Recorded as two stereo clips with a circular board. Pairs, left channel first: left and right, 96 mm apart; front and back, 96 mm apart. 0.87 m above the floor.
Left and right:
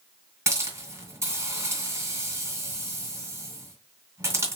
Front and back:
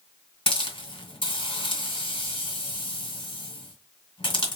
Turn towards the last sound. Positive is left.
turn(degrees=-25)